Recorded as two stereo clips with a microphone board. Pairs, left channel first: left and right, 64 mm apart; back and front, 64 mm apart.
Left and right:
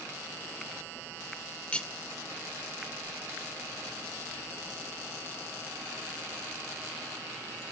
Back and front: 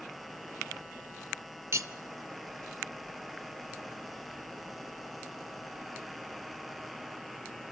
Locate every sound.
1.7 s cutlery clinking: 20° left, 0.7 m